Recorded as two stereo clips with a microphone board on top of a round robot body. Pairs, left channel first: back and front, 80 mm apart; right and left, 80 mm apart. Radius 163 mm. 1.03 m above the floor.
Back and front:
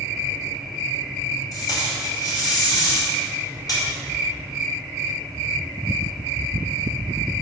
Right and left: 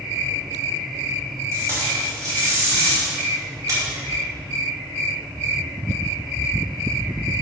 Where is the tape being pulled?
140° left, 2.5 m.